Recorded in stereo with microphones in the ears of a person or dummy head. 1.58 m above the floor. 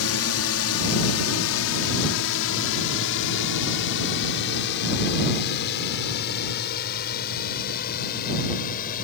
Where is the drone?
75° left (ahead or behind); by 9.0 s 50° left (ahead or behind).